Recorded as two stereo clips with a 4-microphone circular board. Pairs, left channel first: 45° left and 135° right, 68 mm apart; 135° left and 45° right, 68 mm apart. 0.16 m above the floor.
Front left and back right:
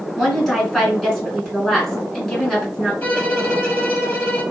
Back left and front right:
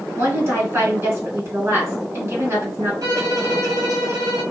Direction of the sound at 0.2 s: 35° right.